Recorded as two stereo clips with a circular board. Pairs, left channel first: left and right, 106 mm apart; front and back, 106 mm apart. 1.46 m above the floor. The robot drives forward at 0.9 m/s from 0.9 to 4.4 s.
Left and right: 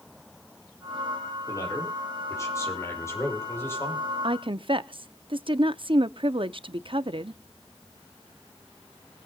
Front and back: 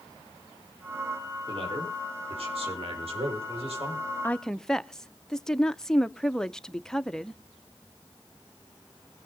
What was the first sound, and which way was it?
A man speaking, 145° left.